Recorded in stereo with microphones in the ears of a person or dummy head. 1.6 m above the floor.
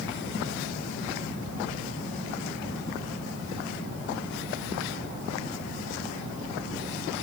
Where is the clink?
No clink in this recording.